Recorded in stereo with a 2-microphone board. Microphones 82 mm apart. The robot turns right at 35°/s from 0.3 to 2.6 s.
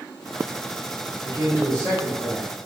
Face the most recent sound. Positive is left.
turn(degrees=-95)